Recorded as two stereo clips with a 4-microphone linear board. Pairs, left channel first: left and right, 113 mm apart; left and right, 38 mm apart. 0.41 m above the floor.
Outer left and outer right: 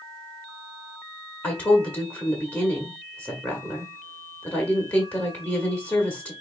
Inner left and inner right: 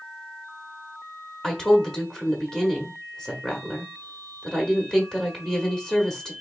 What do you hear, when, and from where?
1.4 s a woman speaking: 15° left (ahead or behind), 1.1 m